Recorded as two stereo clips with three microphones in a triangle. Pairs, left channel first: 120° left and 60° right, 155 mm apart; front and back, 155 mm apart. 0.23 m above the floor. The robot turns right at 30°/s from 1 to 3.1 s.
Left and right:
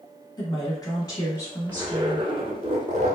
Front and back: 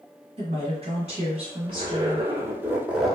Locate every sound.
0.4 s a woman speaking: 170° left, 1.3 m; by 2.3 s 150° right, 1.3 m
1.7 s a zipper: 135° right, 1.0 m; by 3.2 s 90° right, 1.0 m